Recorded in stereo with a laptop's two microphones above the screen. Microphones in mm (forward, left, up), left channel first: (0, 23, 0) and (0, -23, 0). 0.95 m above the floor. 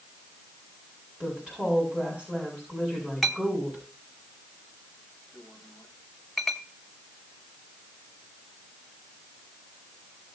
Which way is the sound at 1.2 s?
20° right (ahead or behind).